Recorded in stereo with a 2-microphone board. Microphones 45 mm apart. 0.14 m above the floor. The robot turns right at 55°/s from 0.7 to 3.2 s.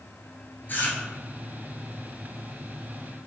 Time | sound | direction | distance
0.7 | chewing | 50° left (ahead or behind) | 0.7 m